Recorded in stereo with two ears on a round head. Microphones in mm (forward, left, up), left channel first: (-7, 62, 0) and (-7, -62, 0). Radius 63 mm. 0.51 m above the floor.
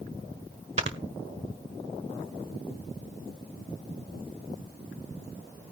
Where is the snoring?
45° right (ahead or behind), 1.4 m.